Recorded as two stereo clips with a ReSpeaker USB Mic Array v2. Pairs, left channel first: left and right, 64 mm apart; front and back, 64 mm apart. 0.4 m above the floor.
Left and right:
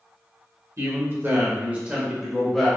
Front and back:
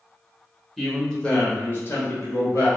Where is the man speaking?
85° right, 1.1 m; by 2.7 s 5° left, 1.2 m.